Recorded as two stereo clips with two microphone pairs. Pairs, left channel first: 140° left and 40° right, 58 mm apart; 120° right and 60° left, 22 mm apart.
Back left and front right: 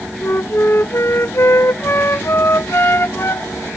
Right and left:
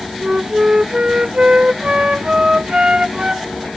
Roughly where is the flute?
Left.